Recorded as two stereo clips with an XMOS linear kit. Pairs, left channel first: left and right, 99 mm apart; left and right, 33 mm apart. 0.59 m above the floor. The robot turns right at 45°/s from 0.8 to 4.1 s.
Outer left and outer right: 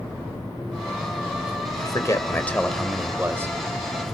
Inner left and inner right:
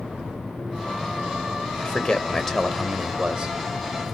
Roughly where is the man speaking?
Behind left.